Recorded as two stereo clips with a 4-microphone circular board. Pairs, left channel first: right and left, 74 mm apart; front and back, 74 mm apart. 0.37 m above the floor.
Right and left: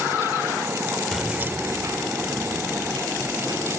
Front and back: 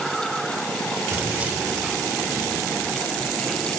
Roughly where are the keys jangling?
Behind.